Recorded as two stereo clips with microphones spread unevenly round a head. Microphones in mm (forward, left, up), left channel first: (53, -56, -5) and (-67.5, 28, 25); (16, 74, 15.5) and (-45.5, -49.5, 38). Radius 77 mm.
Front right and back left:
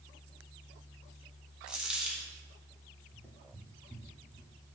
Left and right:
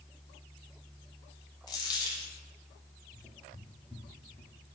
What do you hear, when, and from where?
1.7 s a dropped coin: 110° left, 0.7 m
3.1 s footsteps: 170° right, 1.6 m; by 4.5 s 135° left, 1.7 m